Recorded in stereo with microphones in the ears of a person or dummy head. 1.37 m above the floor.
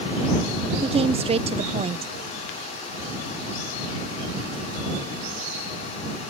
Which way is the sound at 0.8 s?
25° right (ahead or behind).